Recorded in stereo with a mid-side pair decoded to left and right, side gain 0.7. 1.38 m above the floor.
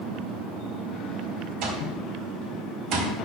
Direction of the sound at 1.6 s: 60° right.